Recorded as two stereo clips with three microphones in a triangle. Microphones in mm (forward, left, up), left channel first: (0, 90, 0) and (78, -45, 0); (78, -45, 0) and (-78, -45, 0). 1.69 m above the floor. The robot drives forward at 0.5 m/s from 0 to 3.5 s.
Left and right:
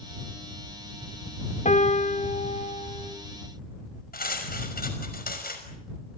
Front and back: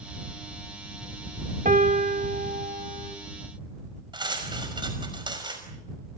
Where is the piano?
155° left, 1.9 m; by 3.1 s 160° left, 2.5 m.